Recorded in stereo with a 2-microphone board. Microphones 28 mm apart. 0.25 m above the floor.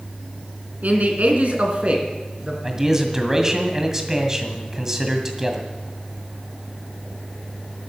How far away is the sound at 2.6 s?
About 1.9 m.